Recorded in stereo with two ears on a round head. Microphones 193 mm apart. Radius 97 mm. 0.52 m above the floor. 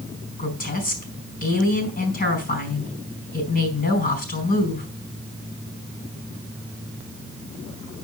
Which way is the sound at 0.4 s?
45° left (ahead or behind).